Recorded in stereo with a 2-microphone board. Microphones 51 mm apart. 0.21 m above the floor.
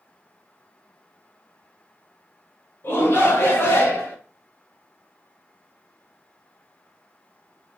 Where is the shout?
50° left (ahead or behind), 1.9 m; by 4.2 s 45° left (ahead or behind), 2 m.